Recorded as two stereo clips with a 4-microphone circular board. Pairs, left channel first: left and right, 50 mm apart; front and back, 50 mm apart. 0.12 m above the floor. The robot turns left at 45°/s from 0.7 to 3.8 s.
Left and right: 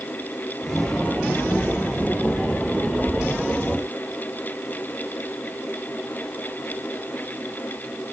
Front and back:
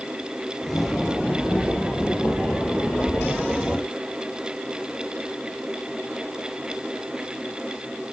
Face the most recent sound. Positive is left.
No sound to turn to.